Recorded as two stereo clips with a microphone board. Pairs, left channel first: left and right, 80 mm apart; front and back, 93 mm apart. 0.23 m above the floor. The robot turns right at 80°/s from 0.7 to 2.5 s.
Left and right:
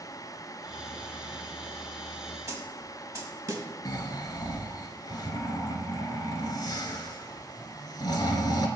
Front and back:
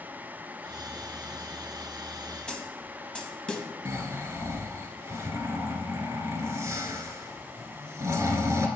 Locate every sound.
2.5 s a snare drum: 75° right, 0.7 m
3.9 s snoring: 125° left, 0.7 m